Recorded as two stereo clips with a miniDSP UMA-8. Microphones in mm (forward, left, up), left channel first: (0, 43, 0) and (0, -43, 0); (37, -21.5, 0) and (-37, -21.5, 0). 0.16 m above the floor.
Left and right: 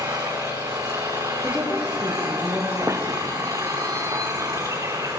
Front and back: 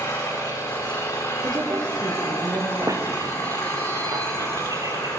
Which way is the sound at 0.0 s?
40° right.